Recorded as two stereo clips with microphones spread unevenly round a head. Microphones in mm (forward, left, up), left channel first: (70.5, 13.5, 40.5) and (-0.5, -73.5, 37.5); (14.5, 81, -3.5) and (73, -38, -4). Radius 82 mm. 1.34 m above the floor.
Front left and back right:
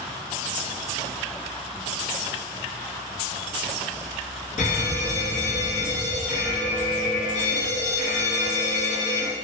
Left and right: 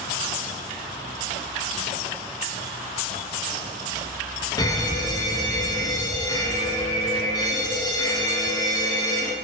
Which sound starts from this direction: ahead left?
An alarm, at 4.6 s.